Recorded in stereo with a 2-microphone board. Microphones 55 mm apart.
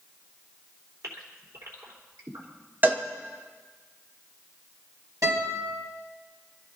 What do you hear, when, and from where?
1.0 s a gasp: 75° right (ahead or behind), 3.5 m
2.8 s a cowbell: 35° right (ahead or behind), 1.4 m
5.2 s a guitar: 85° right, 6 m